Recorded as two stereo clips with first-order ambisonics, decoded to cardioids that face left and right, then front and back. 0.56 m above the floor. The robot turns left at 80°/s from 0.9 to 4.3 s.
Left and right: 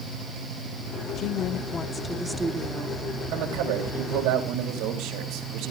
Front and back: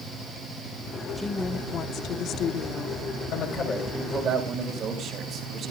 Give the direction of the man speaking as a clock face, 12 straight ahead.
1 o'clock.